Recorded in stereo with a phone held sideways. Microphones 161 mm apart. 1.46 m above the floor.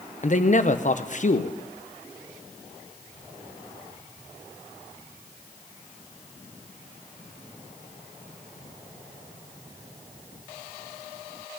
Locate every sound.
0.2 s a man speaking: 50° left (ahead or behind), 0.8 m